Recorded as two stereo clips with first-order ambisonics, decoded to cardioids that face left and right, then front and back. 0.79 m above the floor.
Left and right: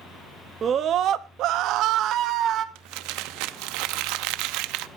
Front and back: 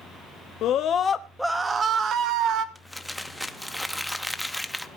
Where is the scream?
30° right, 1.0 m; by 2.6 s 140° right, 1.5 m.